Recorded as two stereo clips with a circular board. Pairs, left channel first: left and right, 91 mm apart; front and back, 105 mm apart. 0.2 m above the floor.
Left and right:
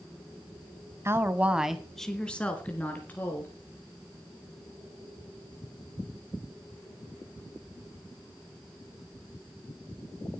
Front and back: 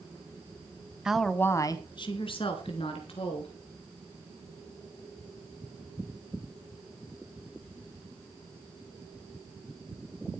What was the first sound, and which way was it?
A woman speaking, 105° right.